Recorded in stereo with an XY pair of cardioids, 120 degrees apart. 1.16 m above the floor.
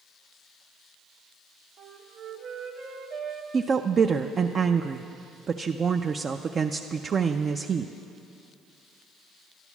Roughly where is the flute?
Ahead right.